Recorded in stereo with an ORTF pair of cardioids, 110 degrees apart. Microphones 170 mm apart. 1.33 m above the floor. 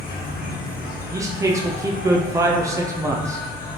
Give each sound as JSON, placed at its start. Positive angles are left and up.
{"t": 0.0, "sound": "an insect", "azimuth_deg": 55, "distance_m": 1.2}
{"t": 1.1, "sound": "a man speaking", "azimuth_deg": -20, "distance_m": 0.6}